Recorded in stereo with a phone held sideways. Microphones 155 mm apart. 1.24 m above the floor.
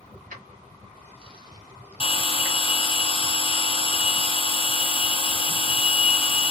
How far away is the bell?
About 0.7 m.